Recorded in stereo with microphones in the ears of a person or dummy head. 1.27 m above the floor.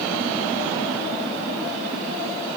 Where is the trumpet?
I don't hear a trumpet.